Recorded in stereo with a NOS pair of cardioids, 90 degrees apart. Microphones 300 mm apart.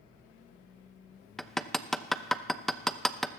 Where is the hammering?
Straight ahead, 0.7 m.